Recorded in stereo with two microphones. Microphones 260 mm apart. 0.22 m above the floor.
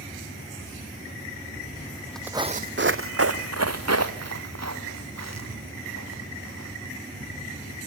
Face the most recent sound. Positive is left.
turn(degrees=-90)